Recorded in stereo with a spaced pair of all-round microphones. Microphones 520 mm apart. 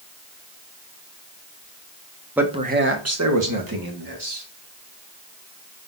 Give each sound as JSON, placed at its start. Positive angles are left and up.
{"t": 2.4, "sound": "a man speaking", "side_deg": -5, "distance_m": 0.8}